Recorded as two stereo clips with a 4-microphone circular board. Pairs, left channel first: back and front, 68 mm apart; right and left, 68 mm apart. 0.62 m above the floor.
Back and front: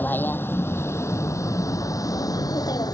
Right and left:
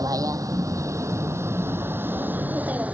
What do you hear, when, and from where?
0.0 s a vehicle: 120° left; by 3.0 s 160° left